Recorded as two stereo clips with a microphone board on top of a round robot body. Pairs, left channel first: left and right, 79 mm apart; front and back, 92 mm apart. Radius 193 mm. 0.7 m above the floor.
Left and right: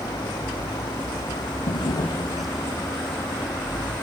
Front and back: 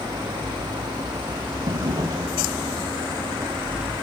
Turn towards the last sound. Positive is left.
turn(degrees=125)